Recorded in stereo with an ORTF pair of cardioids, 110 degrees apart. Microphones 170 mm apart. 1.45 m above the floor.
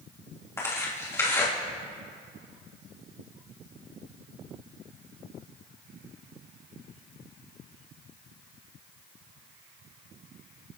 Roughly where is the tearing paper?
Ahead.